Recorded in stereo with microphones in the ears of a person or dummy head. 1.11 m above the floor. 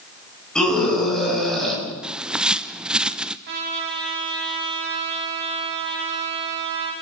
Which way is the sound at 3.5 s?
60° right (ahead or behind).